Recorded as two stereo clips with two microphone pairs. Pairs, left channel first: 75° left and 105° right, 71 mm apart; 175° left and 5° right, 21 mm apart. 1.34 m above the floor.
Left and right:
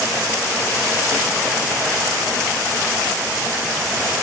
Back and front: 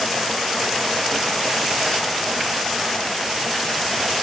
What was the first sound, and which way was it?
Only background noise.